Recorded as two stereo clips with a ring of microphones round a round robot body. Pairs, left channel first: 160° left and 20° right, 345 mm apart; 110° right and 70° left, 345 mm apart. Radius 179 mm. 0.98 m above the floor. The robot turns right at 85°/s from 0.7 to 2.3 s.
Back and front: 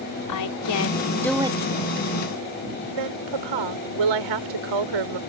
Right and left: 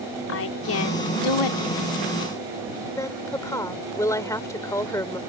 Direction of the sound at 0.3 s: 165° right.